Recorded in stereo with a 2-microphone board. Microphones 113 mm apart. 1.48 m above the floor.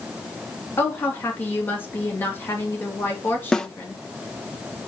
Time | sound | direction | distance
0.8 | a woman speaking | 20° left (ahead or behind) | 3 m
3.5 | a snare drum | 5° left (ahead or behind) | 0.7 m